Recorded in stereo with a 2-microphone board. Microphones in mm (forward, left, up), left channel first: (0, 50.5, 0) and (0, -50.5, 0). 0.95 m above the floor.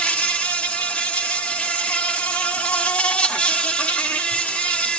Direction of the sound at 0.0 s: 10° left (ahead or behind).